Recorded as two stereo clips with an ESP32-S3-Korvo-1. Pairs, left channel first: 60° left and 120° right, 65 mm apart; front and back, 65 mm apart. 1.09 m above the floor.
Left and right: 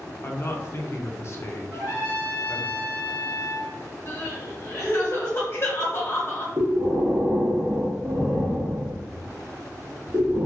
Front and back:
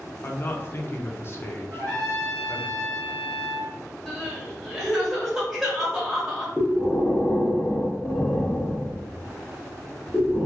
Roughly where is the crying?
Left.